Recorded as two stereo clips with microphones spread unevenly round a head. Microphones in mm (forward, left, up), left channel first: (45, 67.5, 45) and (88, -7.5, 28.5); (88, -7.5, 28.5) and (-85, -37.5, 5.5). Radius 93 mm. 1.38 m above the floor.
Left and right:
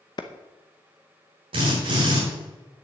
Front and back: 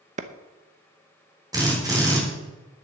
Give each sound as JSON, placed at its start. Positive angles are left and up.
{"t": 0.2, "sound": "a clap", "azimuth_deg": 135, "distance_m": 0.7}
{"t": 1.5, "sound": "a drill", "azimuth_deg": -100, "distance_m": 4.0}